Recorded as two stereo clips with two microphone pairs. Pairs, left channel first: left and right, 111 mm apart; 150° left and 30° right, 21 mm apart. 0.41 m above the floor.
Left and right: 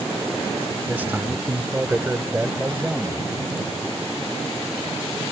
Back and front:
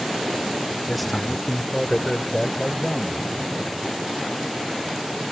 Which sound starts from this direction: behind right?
A man speaking, at 0.9 s.